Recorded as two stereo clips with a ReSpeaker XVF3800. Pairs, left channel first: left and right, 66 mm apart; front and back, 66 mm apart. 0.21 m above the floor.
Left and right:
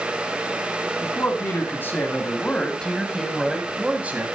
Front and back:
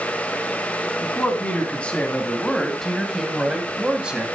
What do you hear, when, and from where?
1.0 s a man speaking: 60° left, 2.5 m; by 4.3 s 120° right, 1.8 m